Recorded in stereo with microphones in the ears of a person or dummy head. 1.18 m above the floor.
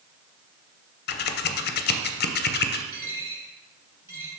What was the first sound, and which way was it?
Scissors, 45° left (ahead or behind).